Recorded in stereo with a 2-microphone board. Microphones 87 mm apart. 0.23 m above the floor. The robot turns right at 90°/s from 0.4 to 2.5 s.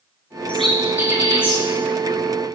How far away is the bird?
About 4 m.